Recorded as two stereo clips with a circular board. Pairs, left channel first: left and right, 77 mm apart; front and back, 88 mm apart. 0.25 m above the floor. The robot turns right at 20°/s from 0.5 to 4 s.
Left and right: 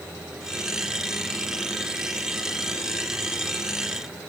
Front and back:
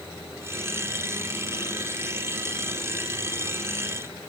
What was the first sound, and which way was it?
Only background noise.